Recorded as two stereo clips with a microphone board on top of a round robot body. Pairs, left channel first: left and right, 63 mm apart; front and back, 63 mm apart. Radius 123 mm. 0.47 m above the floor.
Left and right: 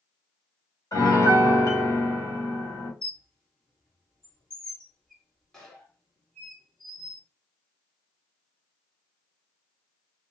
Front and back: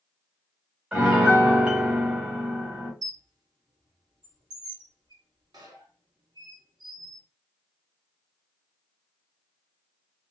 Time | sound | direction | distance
0.9 | a piano | 110° left | 1.6 m
3.0 | a squeak | 170° left | 1.0 m